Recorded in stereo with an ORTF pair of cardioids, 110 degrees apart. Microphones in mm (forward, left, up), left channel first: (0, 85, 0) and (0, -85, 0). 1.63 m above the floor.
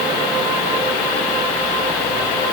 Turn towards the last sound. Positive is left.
No sound to turn to.